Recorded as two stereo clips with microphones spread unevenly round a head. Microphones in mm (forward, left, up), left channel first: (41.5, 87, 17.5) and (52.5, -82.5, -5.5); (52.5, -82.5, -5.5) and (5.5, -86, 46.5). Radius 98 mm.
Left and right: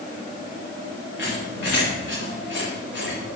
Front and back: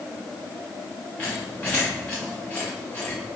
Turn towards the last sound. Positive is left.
turn(degrees=85)